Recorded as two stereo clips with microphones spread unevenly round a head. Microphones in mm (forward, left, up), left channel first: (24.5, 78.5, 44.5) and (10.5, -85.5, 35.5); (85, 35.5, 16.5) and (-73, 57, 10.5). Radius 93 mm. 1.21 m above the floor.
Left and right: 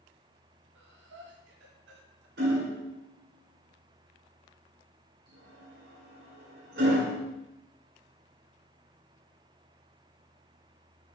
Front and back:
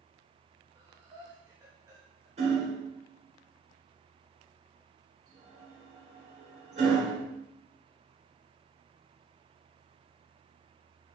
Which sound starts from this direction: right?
Breathing, at 0.8 s.